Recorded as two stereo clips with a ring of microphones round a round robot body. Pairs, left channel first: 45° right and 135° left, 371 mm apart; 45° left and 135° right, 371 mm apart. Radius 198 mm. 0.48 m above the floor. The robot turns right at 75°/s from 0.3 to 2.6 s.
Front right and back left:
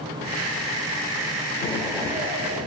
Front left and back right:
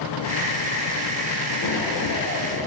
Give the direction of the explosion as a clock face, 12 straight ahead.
11 o'clock.